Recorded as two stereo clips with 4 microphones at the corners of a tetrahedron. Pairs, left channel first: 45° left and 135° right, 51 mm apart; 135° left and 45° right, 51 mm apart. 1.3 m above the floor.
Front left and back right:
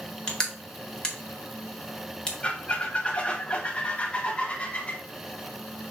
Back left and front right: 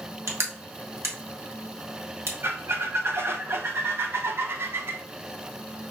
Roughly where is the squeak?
Ahead.